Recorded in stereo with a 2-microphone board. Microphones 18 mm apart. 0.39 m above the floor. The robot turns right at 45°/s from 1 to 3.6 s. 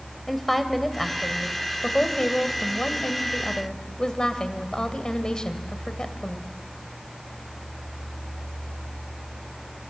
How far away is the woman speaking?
About 2 m.